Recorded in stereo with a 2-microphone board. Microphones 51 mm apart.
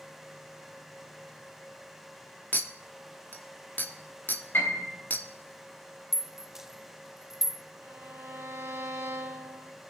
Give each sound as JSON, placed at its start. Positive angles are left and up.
{"t": 2.5, "sound": "a clink", "side_deg": 40, "distance_m": 0.9}
{"t": 4.5, "sound": "a piano", "side_deg": 50, "distance_m": 4.5}
{"t": 6.1, "sound": "a rattle", "side_deg": -5, "distance_m": 0.6}
{"t": 7.8, "sound": "a violin", "side_deg": -75, "distance_m": 2.5}